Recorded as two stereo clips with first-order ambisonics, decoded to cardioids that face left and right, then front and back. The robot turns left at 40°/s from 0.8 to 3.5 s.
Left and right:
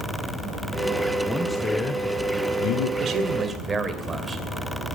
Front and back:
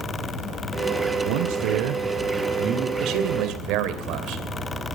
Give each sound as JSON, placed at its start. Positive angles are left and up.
{"t": 1.2, "sound": "a man speaking", "azimuth_deg": 180, "distance_m": 1.5}
{"t": 3.0, "sound": "a man speaking", "azimuth_deg": -140, "distance_m": 2.5}